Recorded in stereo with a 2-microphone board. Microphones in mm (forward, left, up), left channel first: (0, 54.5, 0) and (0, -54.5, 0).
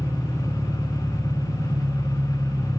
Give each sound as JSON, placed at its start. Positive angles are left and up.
{"t": 0.0, "sound": "an engine running", "side_deg": -20, "distance_m": 2.0}